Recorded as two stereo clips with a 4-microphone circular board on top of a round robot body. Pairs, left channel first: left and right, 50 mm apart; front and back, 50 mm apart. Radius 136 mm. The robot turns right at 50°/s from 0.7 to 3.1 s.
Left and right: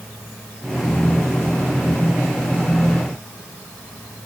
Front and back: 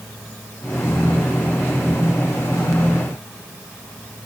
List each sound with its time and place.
Only background noise.